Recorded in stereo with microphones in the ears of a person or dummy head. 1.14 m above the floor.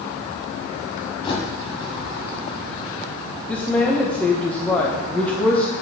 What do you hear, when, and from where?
1.2 s a bird: 30° left (ahead or behind), 2.5 m
3.5 s a woman speaking: 10° left (ahead or behind), 1.0 m